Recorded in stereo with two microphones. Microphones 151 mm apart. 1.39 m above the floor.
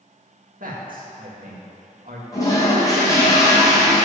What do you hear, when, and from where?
0.6 s a man speaking: 70° right (ahead or behind), 1.9 m
2.3 s a toilet flushing: 25° left (ahead or behind), 2.5 m